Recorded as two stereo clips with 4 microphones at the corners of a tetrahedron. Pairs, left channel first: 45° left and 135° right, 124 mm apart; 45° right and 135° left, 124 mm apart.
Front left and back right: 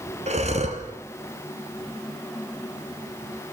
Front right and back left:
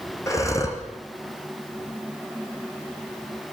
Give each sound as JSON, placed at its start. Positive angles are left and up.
{"t": 0.3, "sound": "breathing", "azimuth_deg": -110, "distance_m": 4.0}